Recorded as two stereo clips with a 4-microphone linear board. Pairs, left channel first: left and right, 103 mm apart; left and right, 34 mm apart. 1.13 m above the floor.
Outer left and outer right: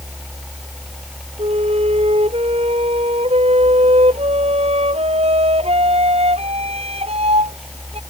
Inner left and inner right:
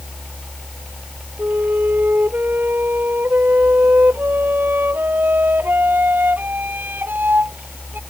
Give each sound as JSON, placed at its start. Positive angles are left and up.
{"t": 1.4, "sound": "a flute", "side_deg": -75}